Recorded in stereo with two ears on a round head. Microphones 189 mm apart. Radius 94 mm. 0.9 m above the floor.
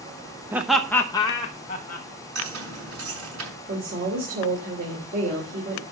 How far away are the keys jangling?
About 7 m.